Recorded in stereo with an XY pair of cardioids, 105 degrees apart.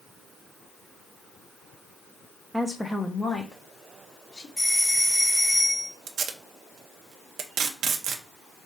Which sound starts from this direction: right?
Tape being pulled, at 6.1 s.